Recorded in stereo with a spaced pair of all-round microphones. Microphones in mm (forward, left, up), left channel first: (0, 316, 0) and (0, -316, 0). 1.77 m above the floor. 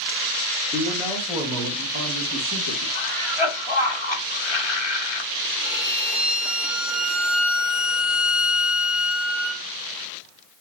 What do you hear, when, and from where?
0.7 s a man speaking: 5° left (ahead or behind), 2.5 m; by 2.9 s 45° right (ahead or behind), 2.5 m
3.0 s a cough: 45° left (ahead or behind), 1.3 m
5.6 s a violin: centre (ahead or behind), 0.8 m